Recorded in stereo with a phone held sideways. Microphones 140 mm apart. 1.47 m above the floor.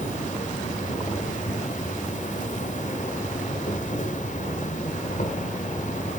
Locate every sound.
0.0 s an insect: 60° left (ahead or behind), 2 m